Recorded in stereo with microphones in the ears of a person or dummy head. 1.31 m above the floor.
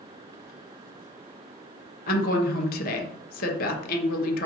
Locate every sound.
2.1 s a woman speaking: 50° left (ahead or behind), 0.6 m